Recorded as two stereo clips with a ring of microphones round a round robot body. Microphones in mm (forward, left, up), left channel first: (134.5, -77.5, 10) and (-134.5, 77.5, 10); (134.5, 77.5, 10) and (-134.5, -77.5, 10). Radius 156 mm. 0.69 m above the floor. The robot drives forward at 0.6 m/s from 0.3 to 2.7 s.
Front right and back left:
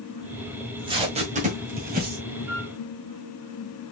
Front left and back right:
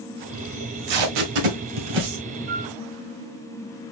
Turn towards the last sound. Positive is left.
turn(degrees=-165)